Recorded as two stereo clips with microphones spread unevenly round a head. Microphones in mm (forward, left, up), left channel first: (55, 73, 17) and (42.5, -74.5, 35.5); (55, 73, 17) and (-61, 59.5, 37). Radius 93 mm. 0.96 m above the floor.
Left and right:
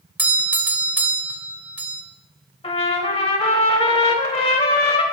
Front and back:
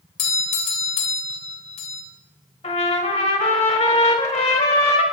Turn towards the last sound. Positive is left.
turn(degrees=35)